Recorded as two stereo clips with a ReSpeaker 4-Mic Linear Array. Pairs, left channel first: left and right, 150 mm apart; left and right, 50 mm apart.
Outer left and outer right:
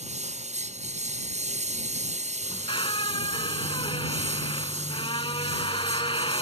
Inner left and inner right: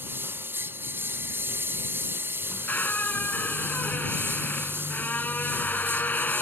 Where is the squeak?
35° left (ahead or behind).